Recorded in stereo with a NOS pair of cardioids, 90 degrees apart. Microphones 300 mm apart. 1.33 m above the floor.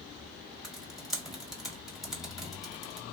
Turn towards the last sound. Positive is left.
turn(degrees=0)